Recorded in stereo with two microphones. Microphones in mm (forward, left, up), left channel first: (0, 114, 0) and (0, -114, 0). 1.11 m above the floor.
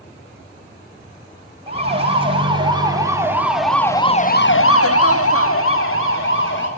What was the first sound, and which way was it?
A siren, 25° right (ahead or behind).